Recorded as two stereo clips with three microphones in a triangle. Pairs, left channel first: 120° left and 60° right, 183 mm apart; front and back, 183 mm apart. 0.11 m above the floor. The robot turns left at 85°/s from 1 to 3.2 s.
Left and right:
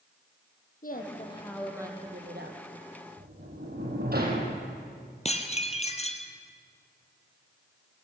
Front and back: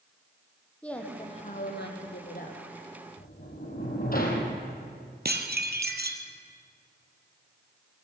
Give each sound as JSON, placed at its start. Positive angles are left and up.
{"t": 0.8, "sound": "a woman speaking", "azimuth_deg": 85, "distance_m": 4.0}
{"t": 3.2, "sound": "a sliding door", "azimuth_deg": -30, "distance_m": 4.5}
{"t": 5.2, "sound": "dishes clattering", "azimuth_deg": 170, "distance_m": 2.0}